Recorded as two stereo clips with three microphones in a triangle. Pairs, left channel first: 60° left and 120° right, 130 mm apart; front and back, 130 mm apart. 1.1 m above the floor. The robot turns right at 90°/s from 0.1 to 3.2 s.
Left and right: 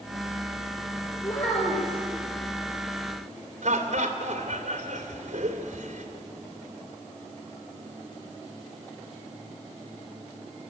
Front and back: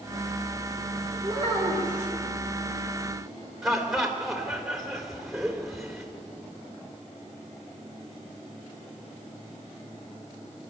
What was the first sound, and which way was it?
A child speaking, 120° left.